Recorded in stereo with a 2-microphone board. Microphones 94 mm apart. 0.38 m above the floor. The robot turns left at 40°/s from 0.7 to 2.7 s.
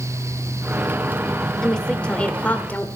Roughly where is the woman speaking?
Centre.